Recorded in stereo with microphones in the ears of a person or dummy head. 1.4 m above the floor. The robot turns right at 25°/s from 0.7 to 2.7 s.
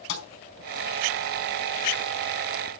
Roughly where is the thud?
Left.